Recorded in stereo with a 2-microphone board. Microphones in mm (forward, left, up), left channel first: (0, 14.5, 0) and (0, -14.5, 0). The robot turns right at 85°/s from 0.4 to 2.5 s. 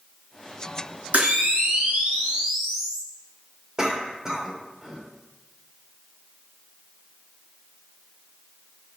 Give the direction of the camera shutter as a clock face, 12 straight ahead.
4 o'clock.